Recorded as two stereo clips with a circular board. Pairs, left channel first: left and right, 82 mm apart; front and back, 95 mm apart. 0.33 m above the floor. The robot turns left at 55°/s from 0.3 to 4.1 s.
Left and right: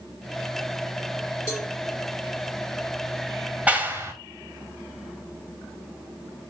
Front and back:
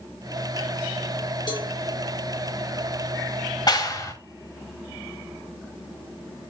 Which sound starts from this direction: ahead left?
A cowbell, at 1.5 s.